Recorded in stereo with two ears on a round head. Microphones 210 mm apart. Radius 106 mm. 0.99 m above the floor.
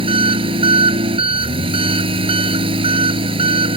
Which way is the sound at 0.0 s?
25° right (ahead or behind).